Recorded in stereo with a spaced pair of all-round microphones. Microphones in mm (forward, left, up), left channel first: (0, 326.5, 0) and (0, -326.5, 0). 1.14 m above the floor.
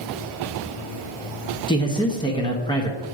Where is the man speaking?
5° left (ahead or behind), 0.8 m.